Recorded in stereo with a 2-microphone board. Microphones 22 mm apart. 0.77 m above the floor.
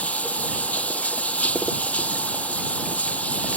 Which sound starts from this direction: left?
Running water, at 0.0 s.